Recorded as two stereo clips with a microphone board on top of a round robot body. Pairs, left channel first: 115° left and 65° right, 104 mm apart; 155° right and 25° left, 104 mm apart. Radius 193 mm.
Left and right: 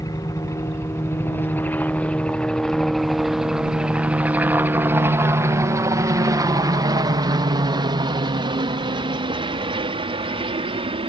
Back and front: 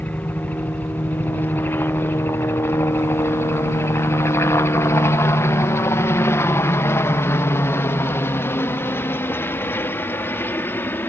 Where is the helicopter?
135° left; by 11.1 s 90° right.